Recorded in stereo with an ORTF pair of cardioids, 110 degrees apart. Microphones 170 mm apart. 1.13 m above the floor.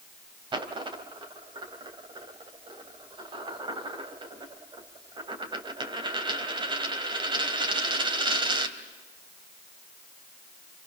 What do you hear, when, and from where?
0.5 s a dropped coin: 25° right, 2.5 m